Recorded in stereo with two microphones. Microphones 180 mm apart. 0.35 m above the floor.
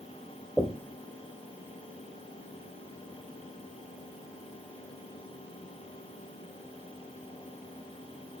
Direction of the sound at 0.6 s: Centre (ahead or behind).